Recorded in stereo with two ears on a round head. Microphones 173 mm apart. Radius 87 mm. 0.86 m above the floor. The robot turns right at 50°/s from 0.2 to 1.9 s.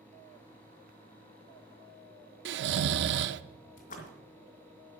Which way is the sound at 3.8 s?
45° left (ahead or behind).